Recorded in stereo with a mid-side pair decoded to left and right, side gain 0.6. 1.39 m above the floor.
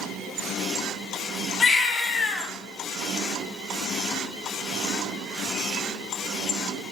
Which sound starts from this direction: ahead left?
A baby crying, at 1.6 s.